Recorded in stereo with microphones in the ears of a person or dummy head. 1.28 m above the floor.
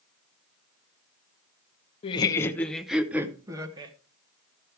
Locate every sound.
2.0 s laughter: 30° left (ahead or behind), 0.8 m; by 3.9 s 25° right (ahead or behind), 1.5 m